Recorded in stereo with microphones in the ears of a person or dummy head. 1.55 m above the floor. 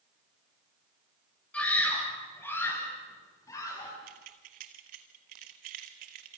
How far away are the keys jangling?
About 1.5 m.